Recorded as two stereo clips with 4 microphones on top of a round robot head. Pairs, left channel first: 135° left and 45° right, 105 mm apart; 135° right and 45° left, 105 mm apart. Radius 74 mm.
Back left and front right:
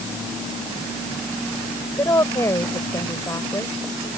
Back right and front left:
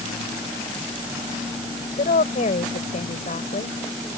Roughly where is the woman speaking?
Behind right.